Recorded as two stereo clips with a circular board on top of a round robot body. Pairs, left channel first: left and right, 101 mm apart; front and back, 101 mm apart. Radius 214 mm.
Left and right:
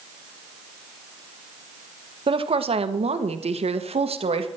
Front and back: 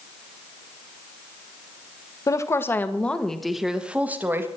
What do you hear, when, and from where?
2.3 s a woman speaking: 60° right, 1.7 m; by 4.5 s 115° right, 1.9 m